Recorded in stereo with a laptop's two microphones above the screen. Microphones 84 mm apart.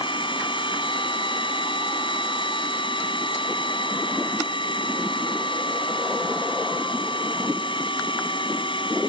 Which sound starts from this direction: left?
A machine running, at 0.0 s.